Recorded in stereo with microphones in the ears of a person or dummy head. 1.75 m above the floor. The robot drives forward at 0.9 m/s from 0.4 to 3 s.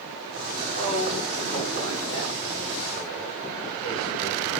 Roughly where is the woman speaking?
Left.